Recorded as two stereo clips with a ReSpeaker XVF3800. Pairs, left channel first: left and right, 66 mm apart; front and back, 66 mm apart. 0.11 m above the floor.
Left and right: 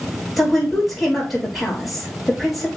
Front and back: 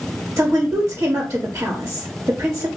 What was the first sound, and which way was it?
A woman speaking, 175° right.